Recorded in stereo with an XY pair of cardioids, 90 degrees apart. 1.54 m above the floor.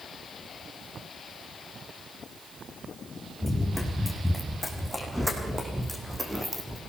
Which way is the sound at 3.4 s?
Straight ahead.